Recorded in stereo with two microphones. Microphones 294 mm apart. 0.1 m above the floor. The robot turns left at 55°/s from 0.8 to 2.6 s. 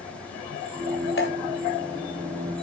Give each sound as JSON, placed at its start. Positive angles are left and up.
{"t": 1.2, "sound": "dripping", "side_deg": 45, "distance_m": 1.9}